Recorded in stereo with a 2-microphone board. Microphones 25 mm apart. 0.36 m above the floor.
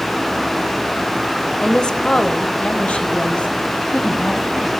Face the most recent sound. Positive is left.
turn(degrees=60)  # may be behind; listen again after turning